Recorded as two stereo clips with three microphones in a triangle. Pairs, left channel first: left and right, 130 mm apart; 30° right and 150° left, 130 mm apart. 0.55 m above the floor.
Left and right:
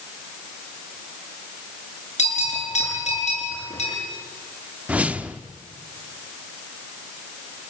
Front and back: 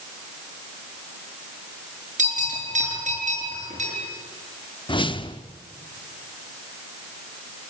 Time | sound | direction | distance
2.2 | a bell | 125° left | 7.5 m
4.9 | a whoosh | 15° right | 0.8 m